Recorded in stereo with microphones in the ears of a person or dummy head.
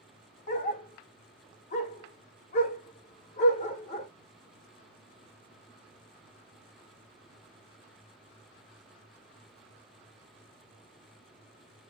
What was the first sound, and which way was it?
A dog barking, 40° left (ahead or behind).